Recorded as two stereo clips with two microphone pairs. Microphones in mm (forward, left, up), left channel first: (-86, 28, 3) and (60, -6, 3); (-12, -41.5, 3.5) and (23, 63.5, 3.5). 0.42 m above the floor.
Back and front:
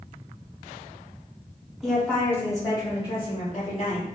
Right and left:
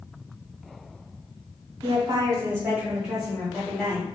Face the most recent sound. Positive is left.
turn(degrees=180)